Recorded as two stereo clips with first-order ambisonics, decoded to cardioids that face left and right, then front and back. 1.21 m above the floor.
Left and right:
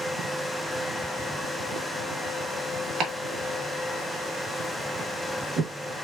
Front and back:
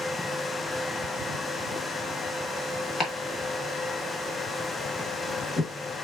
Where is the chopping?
65° right, 1.3 m.